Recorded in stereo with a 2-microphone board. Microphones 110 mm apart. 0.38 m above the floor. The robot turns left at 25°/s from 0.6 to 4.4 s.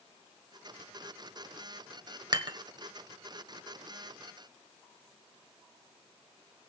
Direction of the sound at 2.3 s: 40° right (ahead or behind).